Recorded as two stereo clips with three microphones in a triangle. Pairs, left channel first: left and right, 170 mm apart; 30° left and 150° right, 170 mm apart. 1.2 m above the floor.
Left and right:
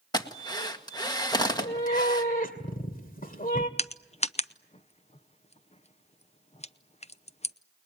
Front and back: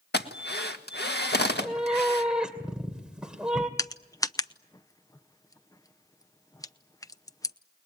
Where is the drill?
25° left, 1.8 m.